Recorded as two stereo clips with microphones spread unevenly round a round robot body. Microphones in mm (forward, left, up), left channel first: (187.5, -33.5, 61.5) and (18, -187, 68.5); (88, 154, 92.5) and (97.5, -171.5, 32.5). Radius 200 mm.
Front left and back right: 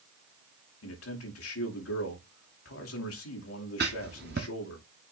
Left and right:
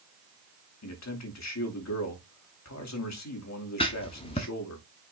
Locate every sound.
0.8 s a man speaking: 50° left, 2.5 m
3.8 s writing: 160° left, 0.5 m